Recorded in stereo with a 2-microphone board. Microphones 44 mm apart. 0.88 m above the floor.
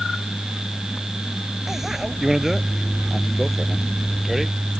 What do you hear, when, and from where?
1.7 s a bicycle bell: 10° right (ahead or behind); by 4.5 s 5° right (ahead or behind)